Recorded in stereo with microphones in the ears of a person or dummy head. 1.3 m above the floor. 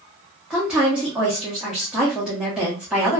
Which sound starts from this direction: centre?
A woman speaking, at 0.5 s.